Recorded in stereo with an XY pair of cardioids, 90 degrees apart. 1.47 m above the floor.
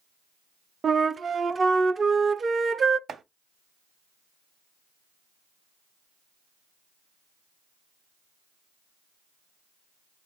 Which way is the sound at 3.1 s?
60° right.